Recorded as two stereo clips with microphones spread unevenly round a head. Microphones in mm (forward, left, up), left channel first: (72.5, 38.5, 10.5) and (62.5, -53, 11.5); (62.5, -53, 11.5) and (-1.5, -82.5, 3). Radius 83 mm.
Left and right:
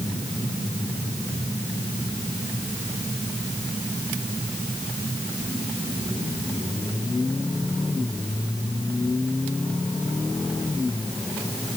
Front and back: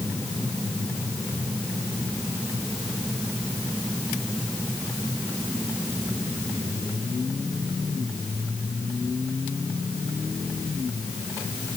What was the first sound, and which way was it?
Only background noise.